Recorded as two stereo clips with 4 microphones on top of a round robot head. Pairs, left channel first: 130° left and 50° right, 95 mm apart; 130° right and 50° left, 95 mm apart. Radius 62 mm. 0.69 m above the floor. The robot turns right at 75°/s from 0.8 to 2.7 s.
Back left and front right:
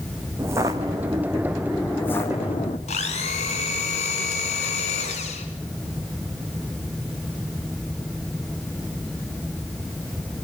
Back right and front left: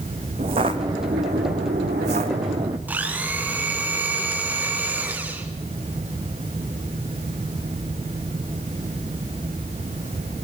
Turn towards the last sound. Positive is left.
turn(degrees=125)